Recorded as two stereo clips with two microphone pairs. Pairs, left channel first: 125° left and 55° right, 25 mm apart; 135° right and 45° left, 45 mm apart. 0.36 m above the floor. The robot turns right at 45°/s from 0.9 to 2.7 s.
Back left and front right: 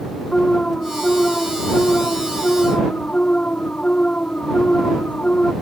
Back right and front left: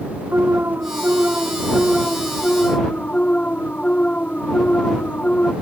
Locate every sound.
0.3 s an alarm: 80° left; by 5.5 s 160° left